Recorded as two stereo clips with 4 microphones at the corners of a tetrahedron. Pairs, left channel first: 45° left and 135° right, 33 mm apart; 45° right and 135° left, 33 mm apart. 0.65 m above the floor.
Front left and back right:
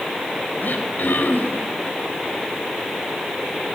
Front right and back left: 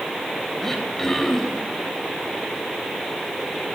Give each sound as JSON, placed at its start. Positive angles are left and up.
{"t": 0.6, "sound": "throat clearing", "azimuth_deg": 35, "distance_m": 3.5}